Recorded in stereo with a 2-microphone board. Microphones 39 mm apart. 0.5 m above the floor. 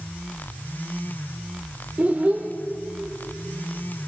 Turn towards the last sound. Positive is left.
turn(degrees=-40)  # may be behind; listen again after turning